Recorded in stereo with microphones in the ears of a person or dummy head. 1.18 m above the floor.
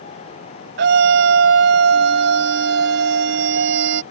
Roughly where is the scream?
Right.